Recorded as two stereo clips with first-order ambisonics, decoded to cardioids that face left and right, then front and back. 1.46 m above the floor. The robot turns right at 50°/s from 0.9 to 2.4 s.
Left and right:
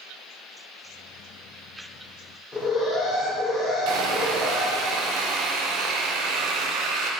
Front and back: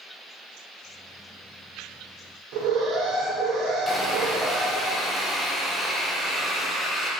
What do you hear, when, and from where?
2.5 s an alarm: 165° left, 3 m
3.9 s sawing: 90° right, 1.2 m